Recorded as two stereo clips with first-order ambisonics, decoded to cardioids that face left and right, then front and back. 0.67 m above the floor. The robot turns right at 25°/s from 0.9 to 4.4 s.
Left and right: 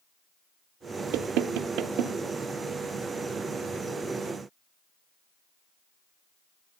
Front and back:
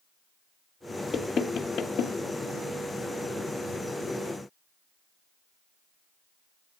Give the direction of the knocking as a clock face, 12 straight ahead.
2 o'clock.